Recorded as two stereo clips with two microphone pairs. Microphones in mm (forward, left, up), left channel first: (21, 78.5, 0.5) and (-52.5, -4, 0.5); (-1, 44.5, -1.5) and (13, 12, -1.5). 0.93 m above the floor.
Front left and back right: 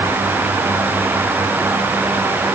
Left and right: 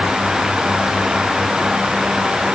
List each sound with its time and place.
Only background noise.